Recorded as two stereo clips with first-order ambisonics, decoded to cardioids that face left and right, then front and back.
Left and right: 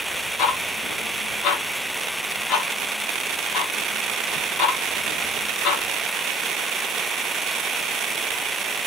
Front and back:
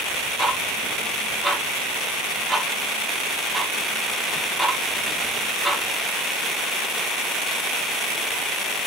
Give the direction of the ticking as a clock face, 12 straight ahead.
9 o'clock.